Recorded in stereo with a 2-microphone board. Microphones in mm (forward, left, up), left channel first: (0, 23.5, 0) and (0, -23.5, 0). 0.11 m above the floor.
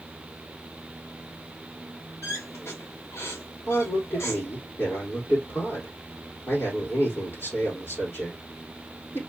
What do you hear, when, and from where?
2.2 s a squeak: 70° left (ahead or behind), 2.5 m
3.7 s a man speaking: 50° left (ahead or behind), 4 m